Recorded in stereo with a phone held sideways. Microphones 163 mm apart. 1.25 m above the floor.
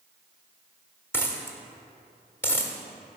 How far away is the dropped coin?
About 1.1 m.